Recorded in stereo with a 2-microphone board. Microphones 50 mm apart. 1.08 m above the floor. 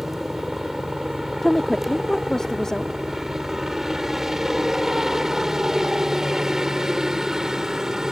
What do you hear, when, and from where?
0.0 s a helicopter: 5° right (ahead or behind); by 8.1 s 10° right (ahead or behind)
1.4 s a woman speaking: 10° left (ahead or behind)